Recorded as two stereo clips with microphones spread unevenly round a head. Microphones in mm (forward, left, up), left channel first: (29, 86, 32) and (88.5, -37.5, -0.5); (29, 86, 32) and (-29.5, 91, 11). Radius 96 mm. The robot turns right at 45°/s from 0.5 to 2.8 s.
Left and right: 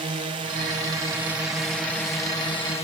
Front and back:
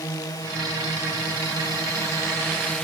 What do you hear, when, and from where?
0.0 s a drone: 35° right; by 2.9 s 70° left